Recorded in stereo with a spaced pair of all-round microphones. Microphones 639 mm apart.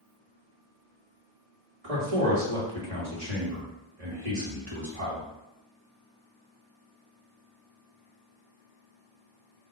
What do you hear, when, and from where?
1.8 s a man speaking: 60° right (ahead or behind), 1.9 m